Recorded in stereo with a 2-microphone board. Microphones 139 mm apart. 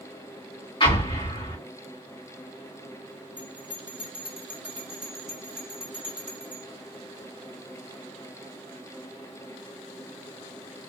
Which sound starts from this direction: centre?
A bell, at 3.4 s.